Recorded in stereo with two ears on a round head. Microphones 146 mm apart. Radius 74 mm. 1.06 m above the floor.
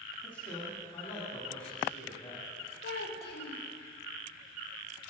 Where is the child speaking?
70° left (ahead or behind), 1.8 m.